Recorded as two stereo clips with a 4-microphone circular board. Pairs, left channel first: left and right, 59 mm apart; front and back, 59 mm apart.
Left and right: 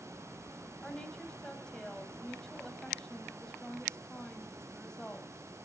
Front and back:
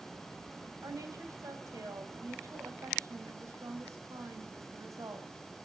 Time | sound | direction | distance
0.8 | a woman speaking | 165° left | 3 m